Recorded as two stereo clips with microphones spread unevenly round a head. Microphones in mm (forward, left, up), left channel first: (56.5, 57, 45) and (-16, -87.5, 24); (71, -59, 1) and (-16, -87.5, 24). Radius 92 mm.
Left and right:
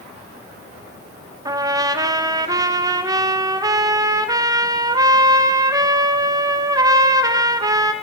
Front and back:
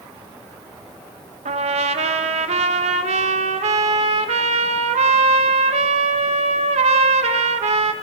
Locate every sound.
1.4 s a trumpet: straight behind, 1.0 m